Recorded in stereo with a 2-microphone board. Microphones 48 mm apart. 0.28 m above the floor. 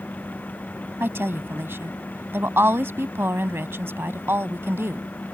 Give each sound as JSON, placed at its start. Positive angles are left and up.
{"t": 1.0, "sound": "a woman speaking", "side_deg": -55}